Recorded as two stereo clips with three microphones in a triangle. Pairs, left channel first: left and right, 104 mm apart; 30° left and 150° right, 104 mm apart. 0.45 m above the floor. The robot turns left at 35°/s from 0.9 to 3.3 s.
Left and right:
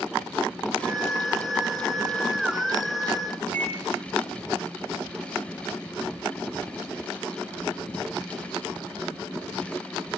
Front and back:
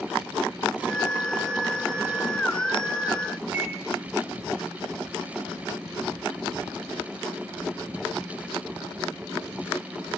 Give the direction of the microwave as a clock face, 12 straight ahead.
7 o'clock.